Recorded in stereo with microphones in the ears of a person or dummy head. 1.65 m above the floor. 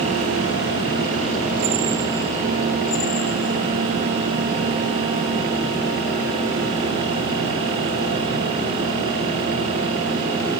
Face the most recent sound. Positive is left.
No sound to turn to.